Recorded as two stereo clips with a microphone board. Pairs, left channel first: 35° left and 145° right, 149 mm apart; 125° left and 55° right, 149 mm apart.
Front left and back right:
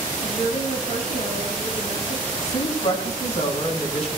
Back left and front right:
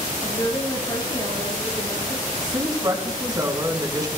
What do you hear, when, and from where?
0.2 s a woman speaking: 60° left, 5.5 m
2.4 s a woman speaking: straight ahead, 3 m